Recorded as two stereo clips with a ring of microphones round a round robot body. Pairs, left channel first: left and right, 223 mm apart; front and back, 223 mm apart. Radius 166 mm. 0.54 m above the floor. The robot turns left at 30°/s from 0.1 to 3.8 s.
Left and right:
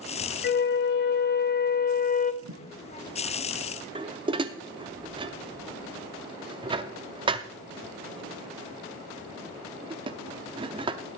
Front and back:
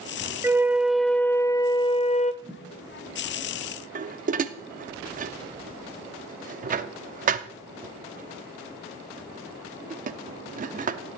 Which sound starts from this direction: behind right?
Dishes clattering, at 4.0 s.